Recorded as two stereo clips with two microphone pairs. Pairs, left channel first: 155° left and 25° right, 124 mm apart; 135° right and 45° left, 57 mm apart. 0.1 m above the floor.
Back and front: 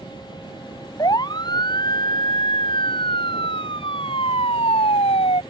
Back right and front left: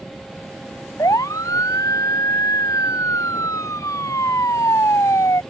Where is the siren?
145° right; by 5.4 s 165° right.